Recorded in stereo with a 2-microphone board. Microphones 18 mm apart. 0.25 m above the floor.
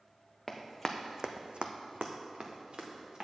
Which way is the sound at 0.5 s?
5° left (ahead or behind).